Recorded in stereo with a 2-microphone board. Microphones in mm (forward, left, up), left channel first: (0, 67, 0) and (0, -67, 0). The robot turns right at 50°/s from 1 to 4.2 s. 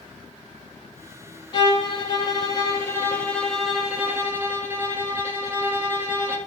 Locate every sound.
1.5 s a violin: 75° left, 0.6 m; by 6.4 s 150° right, 0.6 m